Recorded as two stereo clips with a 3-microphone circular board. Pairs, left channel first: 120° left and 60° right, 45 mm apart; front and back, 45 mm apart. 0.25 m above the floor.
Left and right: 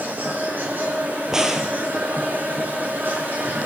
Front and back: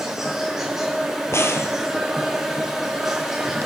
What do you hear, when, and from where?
0.0 s an insect: 100° right, 4.5 m
1.3 s a crack: 15° left, 1.7 m